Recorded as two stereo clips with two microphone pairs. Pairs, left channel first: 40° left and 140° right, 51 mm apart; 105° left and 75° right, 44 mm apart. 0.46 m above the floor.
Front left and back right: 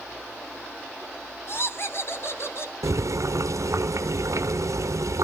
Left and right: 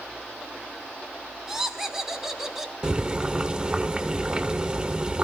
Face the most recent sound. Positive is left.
turn(degrees=-145)